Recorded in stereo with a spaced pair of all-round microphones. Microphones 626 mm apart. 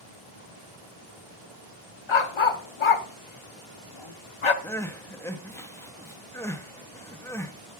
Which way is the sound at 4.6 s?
5° left (ahead or behind).